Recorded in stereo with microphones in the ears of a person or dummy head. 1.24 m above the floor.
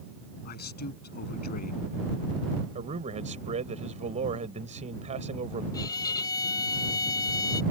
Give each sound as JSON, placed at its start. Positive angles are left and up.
{"t": 0.5, "sound": "a man speaking", "side_deg": 45}
{"t": 2.8, "sound": "a man speaking", "side_deg": -45}
{"t": 5.7, "sound": "a violin", "side_deg": 35}